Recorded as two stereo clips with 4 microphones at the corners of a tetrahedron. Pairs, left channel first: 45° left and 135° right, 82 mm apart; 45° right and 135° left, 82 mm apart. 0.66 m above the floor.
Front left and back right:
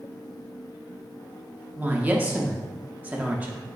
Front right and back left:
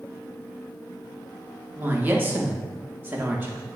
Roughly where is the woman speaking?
Behind.